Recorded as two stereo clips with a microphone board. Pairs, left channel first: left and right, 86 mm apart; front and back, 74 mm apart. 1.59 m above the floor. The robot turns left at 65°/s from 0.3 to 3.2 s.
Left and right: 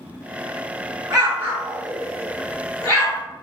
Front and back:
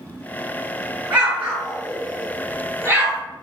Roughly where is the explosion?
Right.